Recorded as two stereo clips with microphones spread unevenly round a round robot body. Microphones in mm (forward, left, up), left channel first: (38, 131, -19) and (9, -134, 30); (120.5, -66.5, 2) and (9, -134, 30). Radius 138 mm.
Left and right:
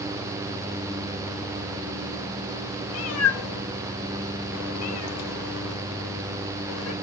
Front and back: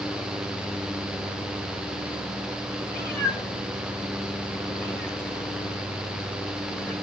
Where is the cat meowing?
115° left, 1.2 m.